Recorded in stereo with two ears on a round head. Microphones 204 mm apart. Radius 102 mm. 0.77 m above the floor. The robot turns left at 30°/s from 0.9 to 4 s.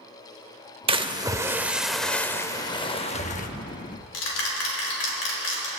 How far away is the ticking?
About 4 m.